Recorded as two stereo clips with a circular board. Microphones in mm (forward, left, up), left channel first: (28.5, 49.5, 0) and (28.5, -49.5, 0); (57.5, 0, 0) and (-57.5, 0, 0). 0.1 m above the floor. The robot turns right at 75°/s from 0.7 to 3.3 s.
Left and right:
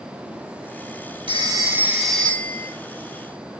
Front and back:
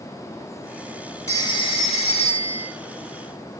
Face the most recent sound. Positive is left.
turn(degrees=90)